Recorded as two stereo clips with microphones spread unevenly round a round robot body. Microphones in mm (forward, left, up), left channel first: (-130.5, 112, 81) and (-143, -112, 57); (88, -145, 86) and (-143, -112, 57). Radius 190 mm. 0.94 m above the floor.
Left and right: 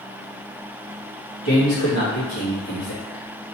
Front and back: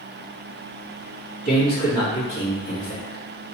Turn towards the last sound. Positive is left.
turn(degrees=55)